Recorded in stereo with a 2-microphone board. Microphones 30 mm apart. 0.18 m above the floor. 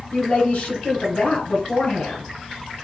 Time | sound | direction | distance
0.1 | a woman speaking | 60° left (ahead or behind) | 2.5 m